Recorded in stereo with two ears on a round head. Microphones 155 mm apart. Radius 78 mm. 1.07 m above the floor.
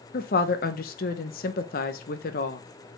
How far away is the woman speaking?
About 0.8 m.